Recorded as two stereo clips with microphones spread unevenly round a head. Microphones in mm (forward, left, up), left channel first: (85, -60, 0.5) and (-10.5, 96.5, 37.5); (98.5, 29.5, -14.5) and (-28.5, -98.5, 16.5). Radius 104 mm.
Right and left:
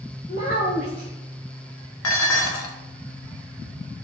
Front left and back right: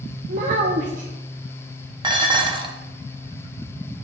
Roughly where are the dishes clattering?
Right.